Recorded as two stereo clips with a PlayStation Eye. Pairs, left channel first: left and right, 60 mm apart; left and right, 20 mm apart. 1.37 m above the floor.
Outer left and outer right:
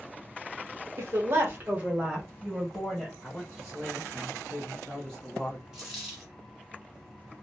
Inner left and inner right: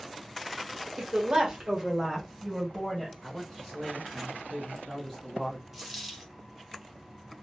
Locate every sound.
1.0 s a woman speaking: 60° right (ahead or behind), 0.9 m; by 3.1 s centre (ahead or behind), 1.5 m
3.2 s a man speaking: 15° left (ahead or behind), 0.9 m
5.7 s a dropped coin: 10° right (ahead or behind), 1.2 m